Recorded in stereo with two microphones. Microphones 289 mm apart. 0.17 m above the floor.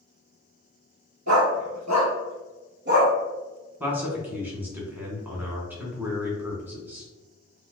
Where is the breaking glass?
No breaking glass in this recording.